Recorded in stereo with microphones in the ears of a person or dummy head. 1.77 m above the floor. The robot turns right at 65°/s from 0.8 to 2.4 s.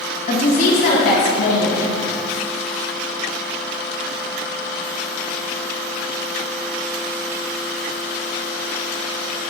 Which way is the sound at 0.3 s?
40° left.